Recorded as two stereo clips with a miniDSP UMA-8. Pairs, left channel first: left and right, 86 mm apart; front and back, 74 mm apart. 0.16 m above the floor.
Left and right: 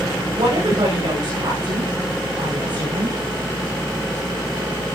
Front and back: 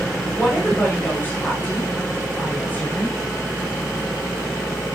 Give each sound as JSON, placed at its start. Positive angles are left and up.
{"t": 0.3, "sound": "a woman speaking", "azimuth_deg": -70, "distance_m": 9.5}